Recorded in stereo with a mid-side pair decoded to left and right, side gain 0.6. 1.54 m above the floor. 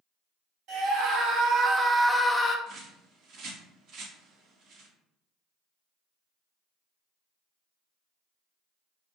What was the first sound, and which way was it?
A scream, 70° right.